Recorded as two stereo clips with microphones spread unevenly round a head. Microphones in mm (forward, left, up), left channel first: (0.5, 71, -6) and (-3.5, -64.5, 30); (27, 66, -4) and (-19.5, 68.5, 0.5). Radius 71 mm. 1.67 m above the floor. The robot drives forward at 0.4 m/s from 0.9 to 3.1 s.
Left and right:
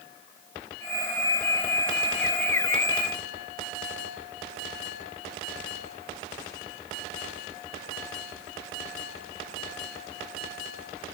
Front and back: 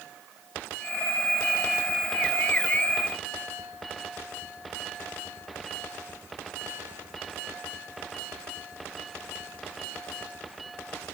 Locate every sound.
Only background noise.